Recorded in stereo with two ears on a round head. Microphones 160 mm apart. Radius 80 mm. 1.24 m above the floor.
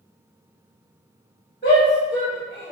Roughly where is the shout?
Left.